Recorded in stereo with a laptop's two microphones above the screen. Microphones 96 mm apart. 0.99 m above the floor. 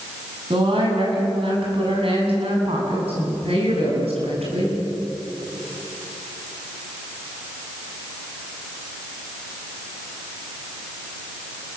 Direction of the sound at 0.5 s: 60° right (ahead or behind).